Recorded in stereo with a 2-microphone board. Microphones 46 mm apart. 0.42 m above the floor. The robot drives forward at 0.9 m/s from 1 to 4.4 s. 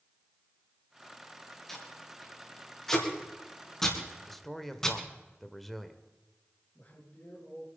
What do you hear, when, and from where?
1.7 s tape being pulled: 5° left (ahead or behind), 6 m; by 5.0 s 10° left (ahead or behind), 4 m
4.3 s a man speaking: 5° left (ahead or behind), 1.6 m
6.8 s a man speaking: 40° left (ahead or behind), 7.5 m